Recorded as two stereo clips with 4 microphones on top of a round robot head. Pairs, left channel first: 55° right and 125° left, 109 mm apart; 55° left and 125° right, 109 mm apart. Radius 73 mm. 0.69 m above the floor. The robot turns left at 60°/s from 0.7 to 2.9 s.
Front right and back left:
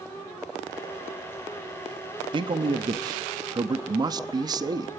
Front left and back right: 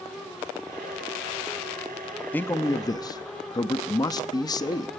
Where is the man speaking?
125° left, 0.9 m; by 4.9 s 90° left, 0.9 m.